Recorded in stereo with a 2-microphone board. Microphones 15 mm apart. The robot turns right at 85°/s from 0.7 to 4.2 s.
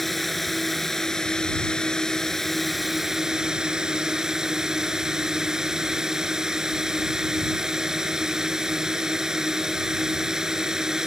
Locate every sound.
0.0 s a drone: 5° left; by 11.1 s 60° right